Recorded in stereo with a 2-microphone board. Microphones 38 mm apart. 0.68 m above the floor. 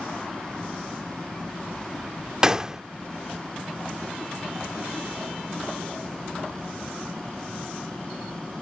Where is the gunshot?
15° right (ahead or behind).